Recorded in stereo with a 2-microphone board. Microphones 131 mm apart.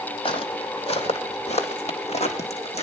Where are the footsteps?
45° left (ahead or behind), 1.7 m; by 2.8 s 55° left (ahead or behind), 2.5 m.